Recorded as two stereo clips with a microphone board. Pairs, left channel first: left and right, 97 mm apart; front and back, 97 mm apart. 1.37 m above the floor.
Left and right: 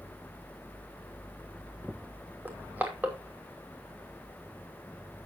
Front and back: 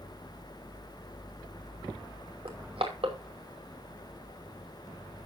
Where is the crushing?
160° right, 2.5 m.